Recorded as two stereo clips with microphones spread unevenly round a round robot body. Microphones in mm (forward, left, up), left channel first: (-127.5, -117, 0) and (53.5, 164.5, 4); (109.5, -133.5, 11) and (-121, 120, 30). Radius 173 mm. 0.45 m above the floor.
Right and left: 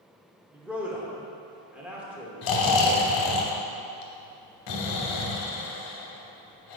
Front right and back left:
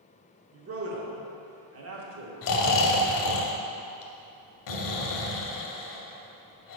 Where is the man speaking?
140° left, 1.0 m.